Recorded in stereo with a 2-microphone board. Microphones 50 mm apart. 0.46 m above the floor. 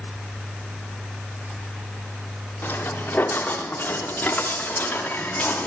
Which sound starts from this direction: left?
Footsteps, at 2.6 s.